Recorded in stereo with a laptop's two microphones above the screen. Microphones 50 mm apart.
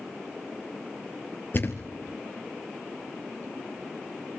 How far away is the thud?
About 2 m.